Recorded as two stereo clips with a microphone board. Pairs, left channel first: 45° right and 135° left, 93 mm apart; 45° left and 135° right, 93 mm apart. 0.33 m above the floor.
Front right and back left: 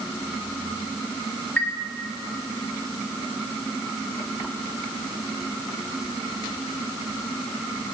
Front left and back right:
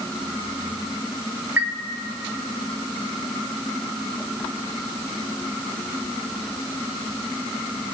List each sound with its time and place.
1.6 s a chime: 100° right, 0.6 m